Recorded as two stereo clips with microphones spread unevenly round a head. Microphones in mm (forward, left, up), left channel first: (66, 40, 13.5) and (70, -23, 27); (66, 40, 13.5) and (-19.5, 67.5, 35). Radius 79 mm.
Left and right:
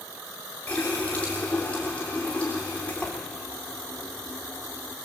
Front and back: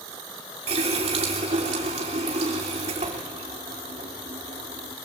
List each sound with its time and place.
0.7 s a running tap: 175° left, 3.5 m